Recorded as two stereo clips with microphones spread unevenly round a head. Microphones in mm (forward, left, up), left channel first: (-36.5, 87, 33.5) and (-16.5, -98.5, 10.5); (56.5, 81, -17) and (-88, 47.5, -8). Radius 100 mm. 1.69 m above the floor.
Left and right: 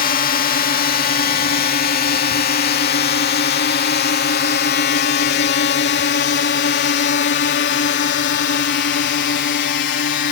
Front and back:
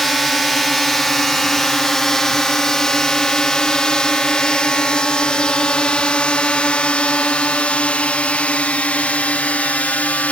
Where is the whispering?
No whispering in this recording.